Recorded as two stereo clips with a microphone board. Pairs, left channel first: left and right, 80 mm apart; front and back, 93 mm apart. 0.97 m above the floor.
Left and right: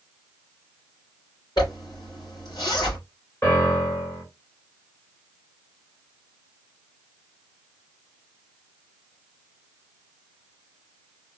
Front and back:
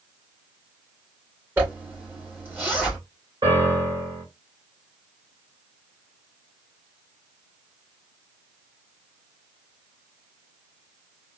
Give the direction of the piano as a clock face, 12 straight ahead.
7 o'clock.